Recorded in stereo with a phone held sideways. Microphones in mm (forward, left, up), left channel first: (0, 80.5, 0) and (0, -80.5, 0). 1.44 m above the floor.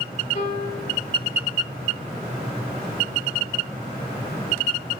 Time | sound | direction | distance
0.3 | a piano | 45° left (ahead or behind) | 2.5 m